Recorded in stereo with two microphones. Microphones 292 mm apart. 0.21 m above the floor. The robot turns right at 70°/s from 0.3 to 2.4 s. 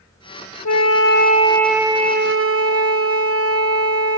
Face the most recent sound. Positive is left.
turn(degrees=-130)